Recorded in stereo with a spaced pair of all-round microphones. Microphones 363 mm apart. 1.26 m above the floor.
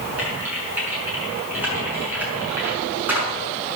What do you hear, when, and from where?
0.2 s typing on a keyboard: 5° right (ahead or behind), 5.5 m